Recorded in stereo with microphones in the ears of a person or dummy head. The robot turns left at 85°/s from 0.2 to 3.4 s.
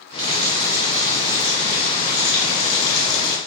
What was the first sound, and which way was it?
A running tap, 70° right.